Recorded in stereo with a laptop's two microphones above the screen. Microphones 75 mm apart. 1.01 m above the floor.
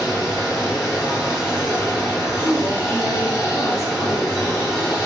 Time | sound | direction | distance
0.0 | running water | 35° left (ahead or behind) | 1.6 m
2.4 | a woman speaking | 45° right (ahead or behind) | 0.9 m